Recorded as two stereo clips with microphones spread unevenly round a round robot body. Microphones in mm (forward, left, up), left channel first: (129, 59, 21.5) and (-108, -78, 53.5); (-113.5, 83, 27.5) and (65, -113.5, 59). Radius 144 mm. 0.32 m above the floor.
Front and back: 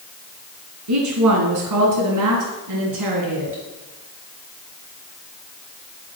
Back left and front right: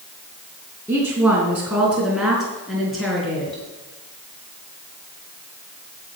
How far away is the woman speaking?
About 3 m.